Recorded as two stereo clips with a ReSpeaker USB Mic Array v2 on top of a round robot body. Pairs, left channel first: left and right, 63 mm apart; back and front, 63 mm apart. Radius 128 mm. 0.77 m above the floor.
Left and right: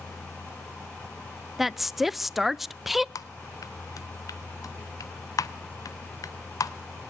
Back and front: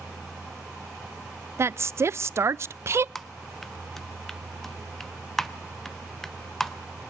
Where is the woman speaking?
5° right, 0.5 m.